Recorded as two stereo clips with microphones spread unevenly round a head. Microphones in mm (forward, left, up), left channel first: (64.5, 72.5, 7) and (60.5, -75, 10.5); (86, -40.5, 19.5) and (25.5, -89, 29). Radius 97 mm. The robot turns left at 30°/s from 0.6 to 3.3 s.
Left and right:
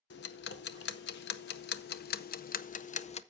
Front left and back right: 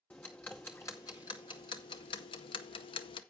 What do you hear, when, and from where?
0.1 s ticking: 120° left, 0.7 m; by 3.2 s 40° left, 0.7 m